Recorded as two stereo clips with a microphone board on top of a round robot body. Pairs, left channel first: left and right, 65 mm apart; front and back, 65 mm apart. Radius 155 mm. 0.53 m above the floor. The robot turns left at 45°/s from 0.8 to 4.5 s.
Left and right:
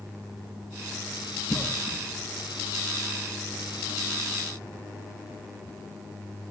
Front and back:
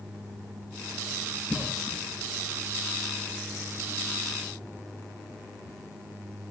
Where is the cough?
40° left, 0.8 m; by 2.0 s 20° left, 0.8 m.